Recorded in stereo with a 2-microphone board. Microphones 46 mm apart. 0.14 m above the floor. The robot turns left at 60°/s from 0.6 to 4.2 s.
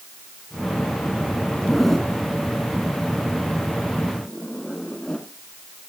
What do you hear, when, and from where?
1.6 s a zipper: 5° right (ahead or behind), 1.5 m; by 5.3 s 15° left (ahead or behind), 1.5 m